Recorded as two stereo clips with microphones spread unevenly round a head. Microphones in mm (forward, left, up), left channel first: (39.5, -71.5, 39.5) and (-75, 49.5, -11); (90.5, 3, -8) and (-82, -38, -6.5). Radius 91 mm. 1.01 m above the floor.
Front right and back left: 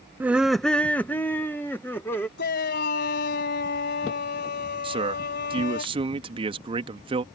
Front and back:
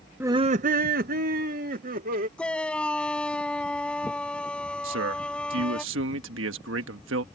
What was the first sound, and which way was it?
Laughter, 120° left.